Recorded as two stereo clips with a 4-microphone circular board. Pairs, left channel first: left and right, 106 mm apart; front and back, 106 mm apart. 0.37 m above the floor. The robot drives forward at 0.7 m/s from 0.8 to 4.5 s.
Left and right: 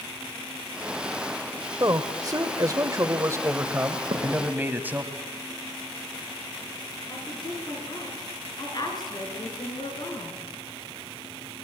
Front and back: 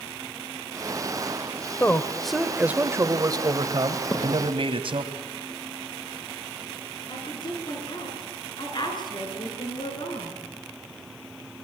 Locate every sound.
1.8 s a man speaking: 60° right, 1.0 m; by 5.1 s 160° right, 1.8 m
4.1 s a thud: 60° right, 5 m
7.1 s a woman speaking: 45° left, 5 m